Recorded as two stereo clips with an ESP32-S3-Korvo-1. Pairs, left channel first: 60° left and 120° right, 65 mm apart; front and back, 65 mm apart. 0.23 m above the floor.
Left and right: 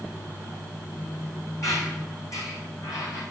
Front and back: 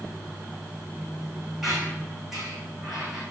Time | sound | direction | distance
1.6 | a squeak | 95° left | 3.5 m